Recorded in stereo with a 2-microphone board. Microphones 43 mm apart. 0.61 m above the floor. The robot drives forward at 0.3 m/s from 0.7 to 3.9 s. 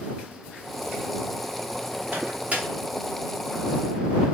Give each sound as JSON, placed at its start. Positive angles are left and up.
{"t": 2.1, "sound": "a microwave", "side_deg": -40, "distance_m": 0.6}